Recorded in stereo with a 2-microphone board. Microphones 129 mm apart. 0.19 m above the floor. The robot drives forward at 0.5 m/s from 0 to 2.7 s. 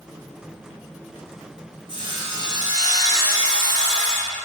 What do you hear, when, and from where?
1.9 s sawing: 40° right (ahead or behind), 1.0 m; by 4.4 s 30° right (ahead or behind), 1.3 m